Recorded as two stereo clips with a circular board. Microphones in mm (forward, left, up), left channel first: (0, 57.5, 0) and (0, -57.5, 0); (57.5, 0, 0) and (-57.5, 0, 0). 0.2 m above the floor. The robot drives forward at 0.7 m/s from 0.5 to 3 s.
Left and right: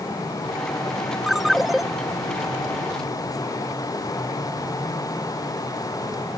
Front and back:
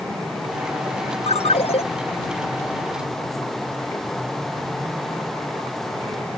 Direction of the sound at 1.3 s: Straight ahead.